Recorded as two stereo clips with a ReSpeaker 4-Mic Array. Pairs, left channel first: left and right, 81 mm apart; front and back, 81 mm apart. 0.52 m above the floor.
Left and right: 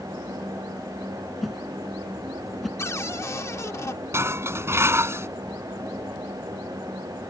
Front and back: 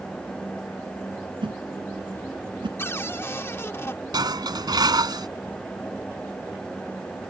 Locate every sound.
1.4 s a whoosh: straight behind
2.8 s a cupboard door: 50° left
4.1 s dishes clattering: 150° right